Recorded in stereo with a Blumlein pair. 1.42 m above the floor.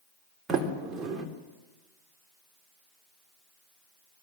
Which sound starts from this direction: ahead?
A sliding door, at 0.5 s.